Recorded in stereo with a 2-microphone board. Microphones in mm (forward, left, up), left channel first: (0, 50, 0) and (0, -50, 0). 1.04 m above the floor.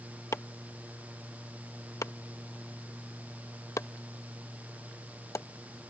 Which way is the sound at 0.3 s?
30° left (ahead or behind).